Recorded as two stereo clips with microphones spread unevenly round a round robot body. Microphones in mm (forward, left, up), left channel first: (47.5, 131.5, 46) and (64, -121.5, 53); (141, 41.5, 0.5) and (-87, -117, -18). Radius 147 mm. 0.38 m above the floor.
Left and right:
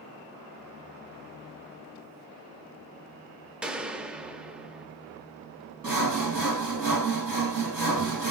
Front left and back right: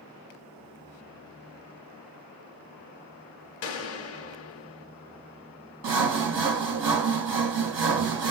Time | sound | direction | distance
3.6 | a gunshot | straight ahead | 0.5 m
5.8 | sawing | 170° right | 3 m